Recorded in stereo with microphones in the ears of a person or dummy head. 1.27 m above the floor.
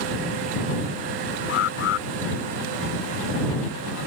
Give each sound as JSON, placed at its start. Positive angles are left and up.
{"t": 1.5, "sound": "an alarm", "side_deg": 65}